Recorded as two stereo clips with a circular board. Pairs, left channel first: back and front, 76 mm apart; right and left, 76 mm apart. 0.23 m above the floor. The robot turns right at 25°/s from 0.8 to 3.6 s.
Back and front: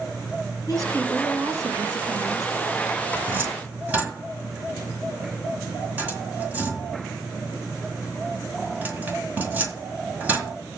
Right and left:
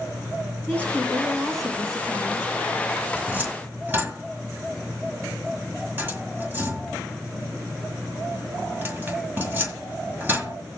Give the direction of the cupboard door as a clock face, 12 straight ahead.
11 o'clock.